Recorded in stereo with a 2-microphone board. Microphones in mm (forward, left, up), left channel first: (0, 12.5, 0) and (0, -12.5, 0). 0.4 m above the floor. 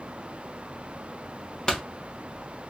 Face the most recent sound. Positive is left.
turn(degrees=25)  # may be behind; listen again after turning